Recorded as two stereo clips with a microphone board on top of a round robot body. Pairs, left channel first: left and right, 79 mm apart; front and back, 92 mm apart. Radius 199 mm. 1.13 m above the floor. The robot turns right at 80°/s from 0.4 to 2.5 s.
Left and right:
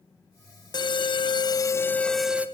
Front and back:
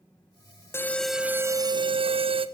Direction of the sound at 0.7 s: 65° left.